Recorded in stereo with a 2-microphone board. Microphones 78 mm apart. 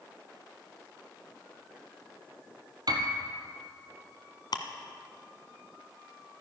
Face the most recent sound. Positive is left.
turn(degrees=60)  # may be behind; listen again after turning